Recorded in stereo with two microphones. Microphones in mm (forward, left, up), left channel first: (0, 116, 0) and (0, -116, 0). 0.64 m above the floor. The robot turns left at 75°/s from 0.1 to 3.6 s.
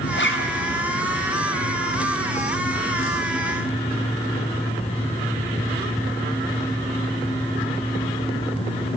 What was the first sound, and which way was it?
A zipper, 135° left.